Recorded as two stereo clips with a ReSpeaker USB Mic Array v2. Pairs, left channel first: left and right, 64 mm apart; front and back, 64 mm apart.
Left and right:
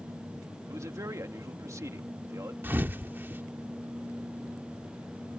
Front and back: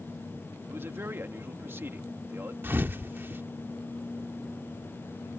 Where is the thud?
140° right.